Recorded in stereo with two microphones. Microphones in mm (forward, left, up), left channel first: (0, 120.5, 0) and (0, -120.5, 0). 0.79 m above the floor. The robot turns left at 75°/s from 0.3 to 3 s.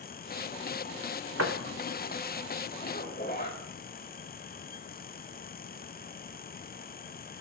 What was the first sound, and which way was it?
A door slam, 85° right.